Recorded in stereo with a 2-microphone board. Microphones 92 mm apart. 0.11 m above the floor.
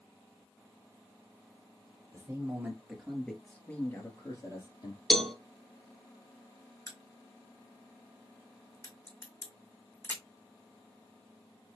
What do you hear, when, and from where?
2.1 s a man speaking: 30° right (ahead or behind), 2 m; by 5.0 s 55° left (ahead or behind), 2.5 m
5.1 s a cowbell: 5° left (ahead or behind), 0.7 m
6.9 s a crack: 30° left (ahead or behind), 1.8 m